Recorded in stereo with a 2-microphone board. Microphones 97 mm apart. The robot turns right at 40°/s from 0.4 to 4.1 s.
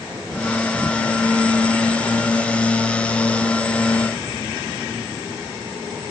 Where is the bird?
No bird in this recording.